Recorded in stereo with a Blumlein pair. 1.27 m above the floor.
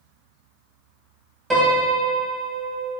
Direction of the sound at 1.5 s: 10° right.